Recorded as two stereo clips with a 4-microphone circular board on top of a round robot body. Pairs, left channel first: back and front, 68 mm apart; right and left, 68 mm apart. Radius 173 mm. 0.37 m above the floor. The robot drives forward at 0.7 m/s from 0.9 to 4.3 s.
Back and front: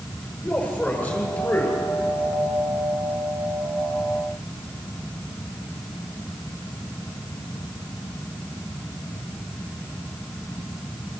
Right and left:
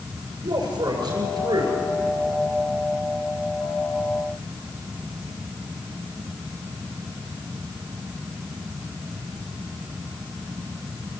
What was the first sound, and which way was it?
A man speaking, 115° left.